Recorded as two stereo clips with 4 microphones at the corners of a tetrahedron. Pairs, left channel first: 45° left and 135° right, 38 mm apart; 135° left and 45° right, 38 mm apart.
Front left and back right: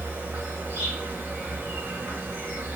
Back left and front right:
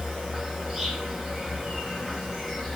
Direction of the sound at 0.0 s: 130° right.